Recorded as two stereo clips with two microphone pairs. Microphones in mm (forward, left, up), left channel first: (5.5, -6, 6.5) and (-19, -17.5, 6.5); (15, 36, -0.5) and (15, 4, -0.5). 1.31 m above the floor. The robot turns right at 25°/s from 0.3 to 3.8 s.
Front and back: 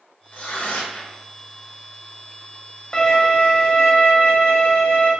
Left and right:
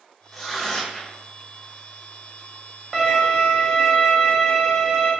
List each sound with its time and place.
0.3 s tearing paper: straight ahead, 0.6 m; by 1.2 s 20° left, 0.6 m
2.9 s a violin: 10° right, 0.7 m; by 5.1 s 10° left, 0.7 m